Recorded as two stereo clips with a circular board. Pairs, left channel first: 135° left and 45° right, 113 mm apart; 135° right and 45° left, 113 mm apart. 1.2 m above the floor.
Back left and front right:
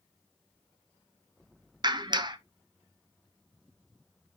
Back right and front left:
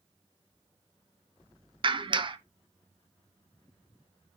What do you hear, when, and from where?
1.8 s a clap: 5° left, 0.6 m